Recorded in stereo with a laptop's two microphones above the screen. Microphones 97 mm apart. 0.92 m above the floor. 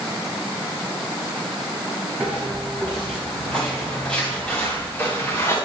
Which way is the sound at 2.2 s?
5° right (ahead or behind).